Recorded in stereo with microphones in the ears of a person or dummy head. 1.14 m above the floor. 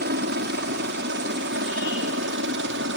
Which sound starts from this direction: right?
A helicopter, at 0.0 s.